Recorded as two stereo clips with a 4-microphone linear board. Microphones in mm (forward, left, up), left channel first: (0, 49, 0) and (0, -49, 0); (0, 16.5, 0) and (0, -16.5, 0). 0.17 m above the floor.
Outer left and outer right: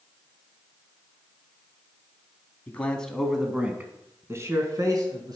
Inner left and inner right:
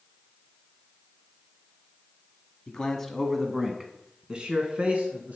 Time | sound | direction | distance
2.7 | a man speaking | 20° left (ahead or behind) | 1.1 m